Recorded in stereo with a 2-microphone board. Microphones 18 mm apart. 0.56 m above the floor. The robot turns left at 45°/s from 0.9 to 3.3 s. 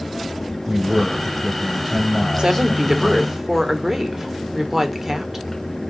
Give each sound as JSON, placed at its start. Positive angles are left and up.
{"t": 0.7, "sound": "a man speaking", "azimuth_deg": -130, "distance_m": 2.5}
{"t": 2.4, "sound": "a woman speaking", "azimuth_deg": -125, "distance_m": 1.6}